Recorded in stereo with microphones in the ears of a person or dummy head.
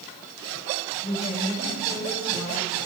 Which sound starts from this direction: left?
A woman speaking, at 1.0 s.